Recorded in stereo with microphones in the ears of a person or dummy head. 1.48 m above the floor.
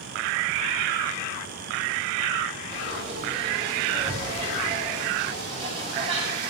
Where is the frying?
40° right (ahead or behind), 5.5 m.